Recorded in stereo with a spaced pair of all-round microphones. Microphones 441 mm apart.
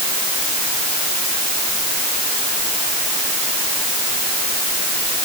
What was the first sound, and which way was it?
Only background noise.